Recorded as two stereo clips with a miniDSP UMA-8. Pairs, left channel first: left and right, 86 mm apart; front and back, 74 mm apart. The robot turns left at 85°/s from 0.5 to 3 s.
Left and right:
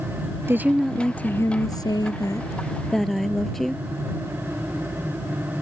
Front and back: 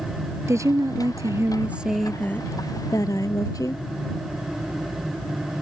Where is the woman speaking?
145° right; by 3.8 s 5° left.